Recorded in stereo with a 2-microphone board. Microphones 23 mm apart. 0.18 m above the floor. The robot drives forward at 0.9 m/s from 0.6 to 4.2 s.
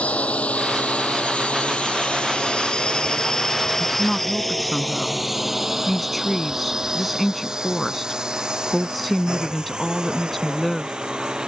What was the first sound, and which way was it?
A drone, 75° left (ahead or behind).